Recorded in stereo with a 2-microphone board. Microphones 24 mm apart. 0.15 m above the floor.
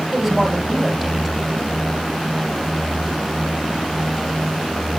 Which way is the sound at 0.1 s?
20° right (ahead or behind).